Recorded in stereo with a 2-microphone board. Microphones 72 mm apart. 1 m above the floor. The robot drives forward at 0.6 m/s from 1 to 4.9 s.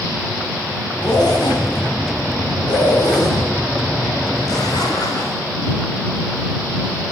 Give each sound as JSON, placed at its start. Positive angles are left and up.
{"t": 1.0, "sound": "a zipper", "side_deg": 70, "distance_m": 3.0}